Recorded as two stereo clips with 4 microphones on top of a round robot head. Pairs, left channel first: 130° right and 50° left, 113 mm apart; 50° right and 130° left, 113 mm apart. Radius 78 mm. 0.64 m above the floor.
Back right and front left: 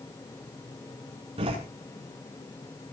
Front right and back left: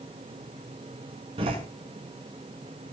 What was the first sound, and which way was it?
A door slam, 90° left.